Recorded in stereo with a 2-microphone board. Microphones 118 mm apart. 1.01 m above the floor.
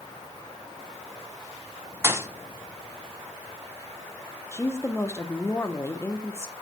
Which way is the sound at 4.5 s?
20° left (ahead or behind).